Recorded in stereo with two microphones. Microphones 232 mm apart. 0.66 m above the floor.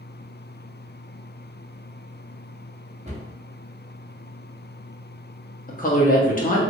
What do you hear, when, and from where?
3.0 s a cupboard door: 30° right (ahead or behind), 0.9 m
5.7 s a woman speaking: 35° left (ahead or behind), 0.7 m